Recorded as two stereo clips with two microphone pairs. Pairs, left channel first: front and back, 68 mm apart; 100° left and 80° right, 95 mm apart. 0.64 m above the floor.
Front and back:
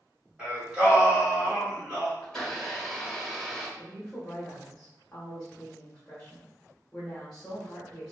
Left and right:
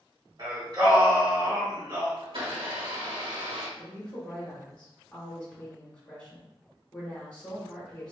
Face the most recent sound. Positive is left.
turn(degrees=50)